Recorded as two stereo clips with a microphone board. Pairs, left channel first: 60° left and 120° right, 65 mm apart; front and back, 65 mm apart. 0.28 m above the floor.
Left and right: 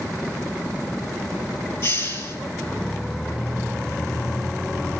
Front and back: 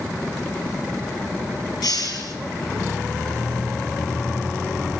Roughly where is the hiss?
Ahead.